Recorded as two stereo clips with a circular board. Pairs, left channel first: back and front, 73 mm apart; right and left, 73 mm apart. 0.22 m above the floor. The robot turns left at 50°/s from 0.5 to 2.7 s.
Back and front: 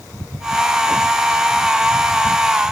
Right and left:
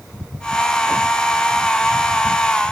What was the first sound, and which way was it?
Only background noise.